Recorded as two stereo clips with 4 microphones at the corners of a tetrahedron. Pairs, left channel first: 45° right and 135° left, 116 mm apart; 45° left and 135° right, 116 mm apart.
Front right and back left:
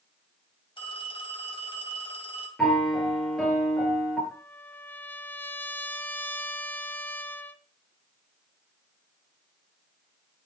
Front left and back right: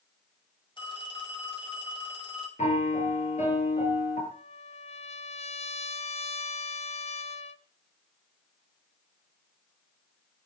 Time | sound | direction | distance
0.8 | a phone ringing | straight ahead | 3.5 m
2.6 | a piano | 40° left | 4.5 m
4.3 | a trumpet | 30° left | 0.8 m